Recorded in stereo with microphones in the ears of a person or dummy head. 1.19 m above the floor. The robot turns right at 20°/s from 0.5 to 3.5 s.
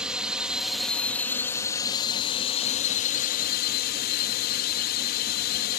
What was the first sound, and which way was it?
A drone, 5° right.